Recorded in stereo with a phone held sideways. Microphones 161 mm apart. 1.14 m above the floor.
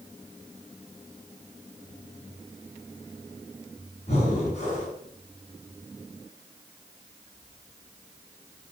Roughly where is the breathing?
Left.